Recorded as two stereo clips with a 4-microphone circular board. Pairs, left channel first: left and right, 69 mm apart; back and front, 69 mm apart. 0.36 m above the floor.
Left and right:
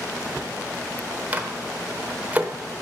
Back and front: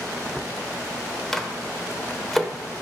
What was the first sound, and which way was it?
A microwave, 100° right.